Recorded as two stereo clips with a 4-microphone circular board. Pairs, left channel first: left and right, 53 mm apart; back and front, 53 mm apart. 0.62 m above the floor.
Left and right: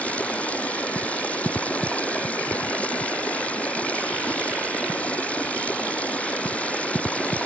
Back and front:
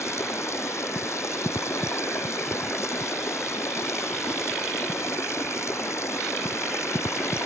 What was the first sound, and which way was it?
Running water, 155° left.